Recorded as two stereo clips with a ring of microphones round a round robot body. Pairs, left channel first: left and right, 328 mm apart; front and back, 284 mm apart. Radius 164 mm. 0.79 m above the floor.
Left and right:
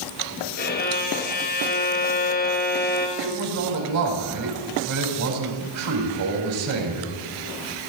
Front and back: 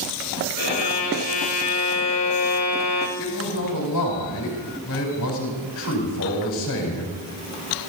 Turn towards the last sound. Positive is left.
turn(degrees=-50)